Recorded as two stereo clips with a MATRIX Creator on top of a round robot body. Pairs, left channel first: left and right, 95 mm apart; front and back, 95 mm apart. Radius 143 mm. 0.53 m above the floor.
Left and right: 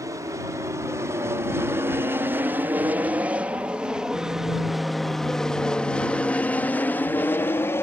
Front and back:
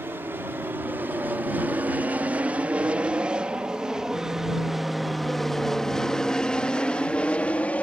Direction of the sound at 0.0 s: 125° right.